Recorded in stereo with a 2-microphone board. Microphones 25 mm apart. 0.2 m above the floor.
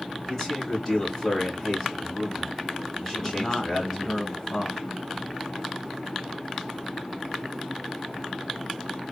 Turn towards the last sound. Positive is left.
turn(degrees=30)  # may be behind; listen again after turning